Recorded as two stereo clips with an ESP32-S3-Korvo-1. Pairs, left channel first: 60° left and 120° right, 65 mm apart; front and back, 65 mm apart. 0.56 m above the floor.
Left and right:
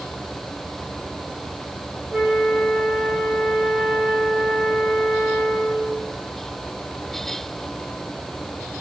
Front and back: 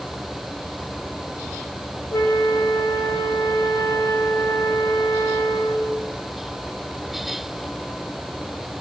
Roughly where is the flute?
Ahead right.